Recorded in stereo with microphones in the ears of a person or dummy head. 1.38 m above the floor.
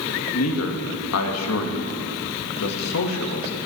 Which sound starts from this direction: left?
A man speaking, at 0.3 s.